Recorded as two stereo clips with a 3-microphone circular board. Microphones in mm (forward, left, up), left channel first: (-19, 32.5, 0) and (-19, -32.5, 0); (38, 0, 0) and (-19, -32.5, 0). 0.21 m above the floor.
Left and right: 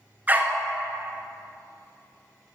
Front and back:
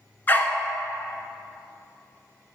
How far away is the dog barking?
About 1.1 m.